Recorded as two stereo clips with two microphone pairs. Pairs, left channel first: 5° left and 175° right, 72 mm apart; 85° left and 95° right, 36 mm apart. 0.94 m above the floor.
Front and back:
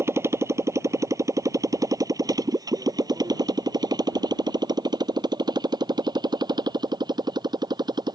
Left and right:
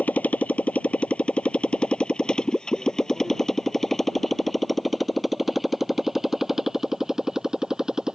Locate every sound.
0.0 s a motorcycle: 135° left; by 8.2 s 165° right